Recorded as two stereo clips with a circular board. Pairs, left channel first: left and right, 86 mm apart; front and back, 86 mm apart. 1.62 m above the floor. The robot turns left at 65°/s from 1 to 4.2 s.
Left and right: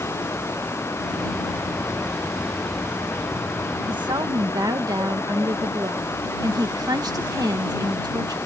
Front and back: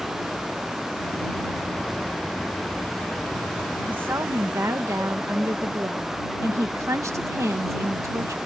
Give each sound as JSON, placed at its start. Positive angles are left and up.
{"t": 3.9, "sound": "a woman speaking", "azimuth_deg": -105}